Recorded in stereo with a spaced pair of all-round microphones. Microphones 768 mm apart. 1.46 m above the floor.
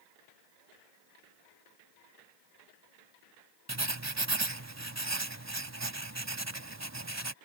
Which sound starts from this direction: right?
Writing, at 3.7 s.